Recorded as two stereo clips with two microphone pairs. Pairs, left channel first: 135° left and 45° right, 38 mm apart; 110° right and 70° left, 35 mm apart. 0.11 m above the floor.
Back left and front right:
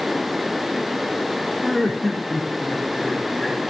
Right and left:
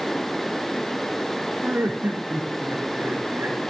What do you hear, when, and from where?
1.6 s laughter: 50° left, 5.5 m